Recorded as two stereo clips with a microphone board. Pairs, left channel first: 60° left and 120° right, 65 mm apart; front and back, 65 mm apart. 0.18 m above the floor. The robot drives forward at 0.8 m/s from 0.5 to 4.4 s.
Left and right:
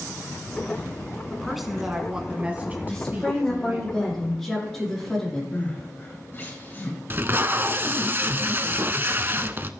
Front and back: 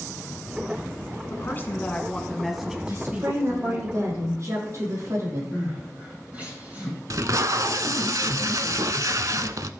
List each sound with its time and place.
1.3 s a woman speaking: 30° right, 1.6 m; by 3.9 s 155° right, 1.6 m
2.9 s a woman speaking: 135° left, 6.5 m; by 5.4 s 140° left, 7 m
5.5 s crying: 115° left, 6.5 m
7.1 s tape being pulled: 170° right, 0.6 m